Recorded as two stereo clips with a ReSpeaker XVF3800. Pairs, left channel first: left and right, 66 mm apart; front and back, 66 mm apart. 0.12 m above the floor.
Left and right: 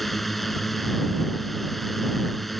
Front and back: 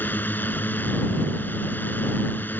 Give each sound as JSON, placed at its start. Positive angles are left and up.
{"t": 0.0, "sound": "a drone", "azimuth_deg": 5}